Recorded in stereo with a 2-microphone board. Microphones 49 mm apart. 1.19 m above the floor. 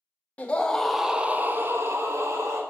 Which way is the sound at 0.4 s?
30° left (ahead or behind).